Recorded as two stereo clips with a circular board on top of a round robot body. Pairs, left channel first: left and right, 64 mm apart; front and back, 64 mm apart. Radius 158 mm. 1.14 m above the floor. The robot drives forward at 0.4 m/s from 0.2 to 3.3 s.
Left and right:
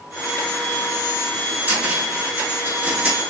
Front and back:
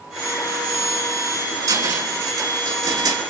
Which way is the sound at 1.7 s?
160° right.